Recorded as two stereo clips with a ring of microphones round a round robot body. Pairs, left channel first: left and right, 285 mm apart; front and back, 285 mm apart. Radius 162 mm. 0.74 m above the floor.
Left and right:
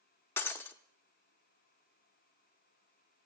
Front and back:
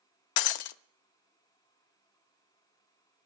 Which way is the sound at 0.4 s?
5° left.